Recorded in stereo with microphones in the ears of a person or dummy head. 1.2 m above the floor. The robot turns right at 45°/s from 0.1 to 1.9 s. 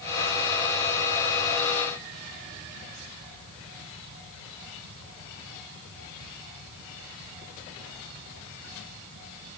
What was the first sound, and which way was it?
Only background noise.